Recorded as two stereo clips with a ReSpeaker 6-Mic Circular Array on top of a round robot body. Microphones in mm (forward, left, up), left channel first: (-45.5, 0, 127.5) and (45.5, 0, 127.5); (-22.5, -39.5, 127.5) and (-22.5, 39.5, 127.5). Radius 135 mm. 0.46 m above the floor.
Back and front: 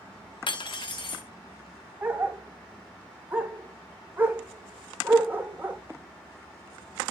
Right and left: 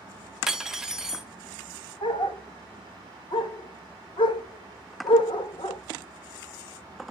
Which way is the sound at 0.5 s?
170° left.